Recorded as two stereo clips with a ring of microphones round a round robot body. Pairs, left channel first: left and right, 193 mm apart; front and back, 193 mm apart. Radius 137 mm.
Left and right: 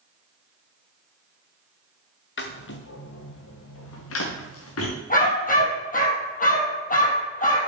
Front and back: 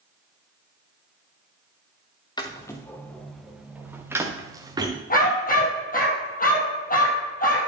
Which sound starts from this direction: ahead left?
A dog barking, at 5.1 s.